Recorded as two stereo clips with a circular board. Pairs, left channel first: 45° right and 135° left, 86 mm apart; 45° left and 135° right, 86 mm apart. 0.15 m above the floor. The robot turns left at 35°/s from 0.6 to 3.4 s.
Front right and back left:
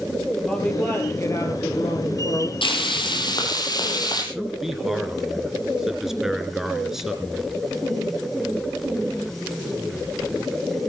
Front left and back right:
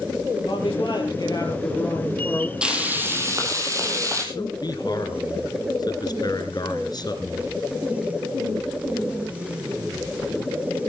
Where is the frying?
55° right, 4 m; by 4.2 s 85° right, 4 m.